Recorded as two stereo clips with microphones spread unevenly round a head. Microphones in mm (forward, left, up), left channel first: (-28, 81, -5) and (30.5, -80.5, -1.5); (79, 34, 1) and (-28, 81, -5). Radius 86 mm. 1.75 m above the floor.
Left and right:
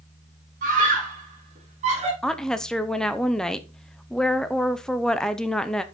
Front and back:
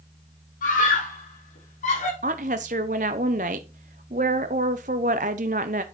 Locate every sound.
0.6 s a scream: 25° right, 5 m; by 2.1 s 15° right, 5.5 m
2.2 s a woman speaking: 165° right, 0.8 m